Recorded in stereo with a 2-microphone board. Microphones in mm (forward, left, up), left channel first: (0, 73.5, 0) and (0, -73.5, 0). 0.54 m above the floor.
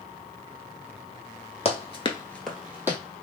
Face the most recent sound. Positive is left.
turn(degrees=-15)  # may be behind; listen again after turning